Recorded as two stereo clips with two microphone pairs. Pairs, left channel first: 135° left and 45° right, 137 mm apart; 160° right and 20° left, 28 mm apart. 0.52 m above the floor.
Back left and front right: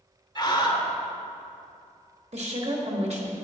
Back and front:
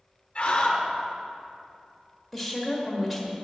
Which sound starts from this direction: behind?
A scream, at 0.3 s.